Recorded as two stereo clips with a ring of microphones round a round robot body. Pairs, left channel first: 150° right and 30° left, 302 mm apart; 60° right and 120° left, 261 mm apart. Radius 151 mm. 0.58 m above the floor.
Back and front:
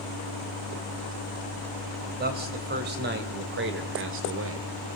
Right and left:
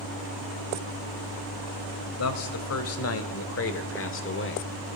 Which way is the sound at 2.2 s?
30° right.